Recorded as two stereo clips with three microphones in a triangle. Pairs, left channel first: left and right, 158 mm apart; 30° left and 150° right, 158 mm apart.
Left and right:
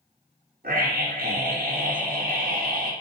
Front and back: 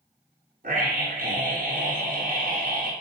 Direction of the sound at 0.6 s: 115° right.